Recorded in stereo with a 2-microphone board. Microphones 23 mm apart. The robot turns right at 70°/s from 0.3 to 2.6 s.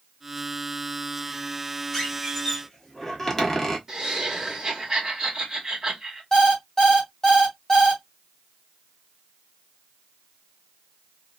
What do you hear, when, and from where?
1.9 s a squeak: 10° left (ahead or behind), 1.0 m; by 3.8 s 20° left (ahead or behind), 1.0 m
3.9 s laughter: 15° right (ahead or behind), 1.3 m
6.3 s an alarm clock: 40° left (ahead or behind), 1.7 m